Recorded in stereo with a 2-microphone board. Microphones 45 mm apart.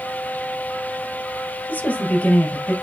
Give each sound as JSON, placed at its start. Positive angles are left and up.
{"t": 1.7, "sound": "a woman speaking", "side_deg": 35, "distance_m": 2.5}